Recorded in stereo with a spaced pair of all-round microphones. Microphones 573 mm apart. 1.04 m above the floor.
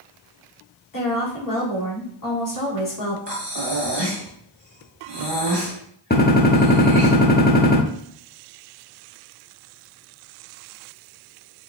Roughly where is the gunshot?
Centre.